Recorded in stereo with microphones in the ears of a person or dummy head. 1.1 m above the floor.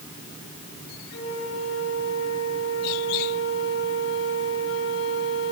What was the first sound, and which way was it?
A flute, 80° left.